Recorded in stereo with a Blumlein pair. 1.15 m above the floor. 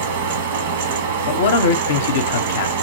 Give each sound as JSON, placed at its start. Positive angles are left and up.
{"t": 0.0, "sound": "a fan", "azimuth_deg": -60, "distance_m": 0.9}
{"t": 1.3, "sound": "a man speaking", "azimuth_deg": 60, "distance_m": 0.6}